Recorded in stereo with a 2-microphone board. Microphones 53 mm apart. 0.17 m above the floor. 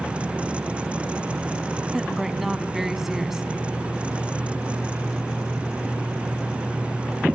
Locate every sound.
1.9 s a woman speaking: 5° right (ahead or behind), 1.1 m